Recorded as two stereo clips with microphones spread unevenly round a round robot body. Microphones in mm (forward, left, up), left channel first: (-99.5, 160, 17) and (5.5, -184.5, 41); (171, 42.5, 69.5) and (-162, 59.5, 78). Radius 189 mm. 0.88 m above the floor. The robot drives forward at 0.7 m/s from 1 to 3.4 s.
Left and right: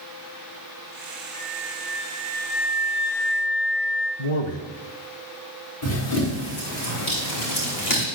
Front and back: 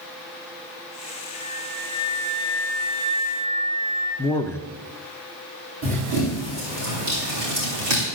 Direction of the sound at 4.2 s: 75° left.